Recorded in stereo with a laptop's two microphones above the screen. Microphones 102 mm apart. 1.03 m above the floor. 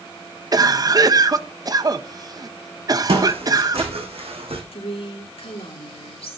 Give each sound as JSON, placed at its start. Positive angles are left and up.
{"t": 0.5, "sound": "a cough", "side_deg": -40, "distance_m": 1.1}
{"t": 3.1, "sound": "footsteps", "side_deg": -75, "distance_m": 4.0}
{"t": 4.7, "sound": "a woman speaking", "side_deg": 70, "distance_m": 2.5}